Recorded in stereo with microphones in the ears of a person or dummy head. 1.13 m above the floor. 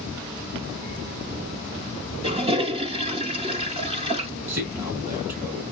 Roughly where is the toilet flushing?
Right.